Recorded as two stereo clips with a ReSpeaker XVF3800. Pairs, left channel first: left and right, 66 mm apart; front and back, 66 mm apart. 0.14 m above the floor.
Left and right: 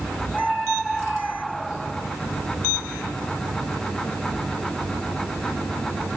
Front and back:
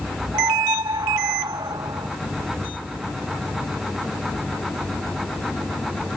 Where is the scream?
175° right; by 2.1 s straight behind.